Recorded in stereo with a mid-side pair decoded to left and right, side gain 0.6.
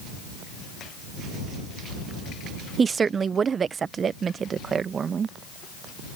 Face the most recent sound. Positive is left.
turn(degrees=-40)